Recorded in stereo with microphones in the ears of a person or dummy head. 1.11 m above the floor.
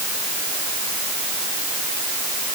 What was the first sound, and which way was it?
Only background noise.